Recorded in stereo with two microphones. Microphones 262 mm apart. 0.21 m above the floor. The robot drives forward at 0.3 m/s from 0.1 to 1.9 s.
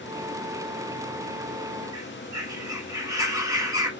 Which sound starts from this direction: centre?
A bird, at 1.9 s.